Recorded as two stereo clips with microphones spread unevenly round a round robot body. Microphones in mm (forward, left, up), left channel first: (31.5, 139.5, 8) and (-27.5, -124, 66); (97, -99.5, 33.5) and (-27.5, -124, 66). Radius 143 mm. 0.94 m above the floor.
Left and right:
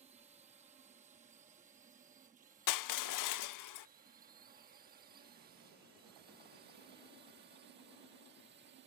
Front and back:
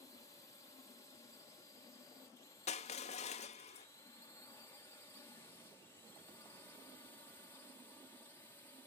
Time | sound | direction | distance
0.0 | a drone | 30° right | ?
2.7 | crushing | 60° left | ?